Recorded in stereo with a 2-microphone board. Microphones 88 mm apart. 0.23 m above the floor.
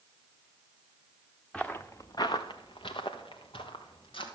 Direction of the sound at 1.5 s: 10° left (ahead or behind).